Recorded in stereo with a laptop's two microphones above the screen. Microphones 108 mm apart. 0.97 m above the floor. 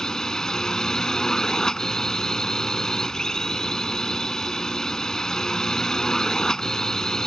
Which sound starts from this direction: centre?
A drone, at 0.0 s.